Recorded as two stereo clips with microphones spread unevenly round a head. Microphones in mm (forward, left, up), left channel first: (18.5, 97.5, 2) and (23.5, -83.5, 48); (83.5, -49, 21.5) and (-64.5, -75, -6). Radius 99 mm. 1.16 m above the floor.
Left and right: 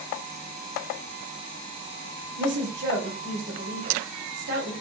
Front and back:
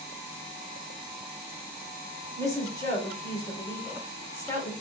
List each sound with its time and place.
2.4 s a woman speaking: 60° right, 4.5 m